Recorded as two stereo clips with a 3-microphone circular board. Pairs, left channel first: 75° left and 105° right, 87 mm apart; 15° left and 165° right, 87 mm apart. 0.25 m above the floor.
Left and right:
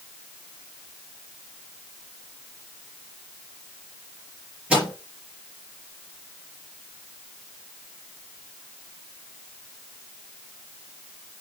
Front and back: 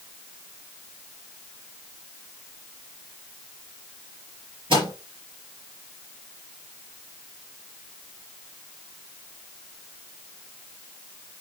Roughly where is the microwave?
Behind.